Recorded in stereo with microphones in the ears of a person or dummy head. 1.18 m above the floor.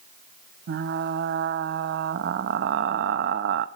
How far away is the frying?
About 0.7 m.